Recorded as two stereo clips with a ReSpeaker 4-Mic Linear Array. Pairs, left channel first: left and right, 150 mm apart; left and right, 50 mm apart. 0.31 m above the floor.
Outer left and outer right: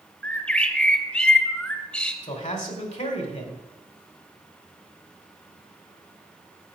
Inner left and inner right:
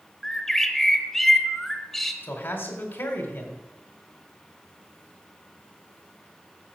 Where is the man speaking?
50° left (ahead or behind), 2.0 m.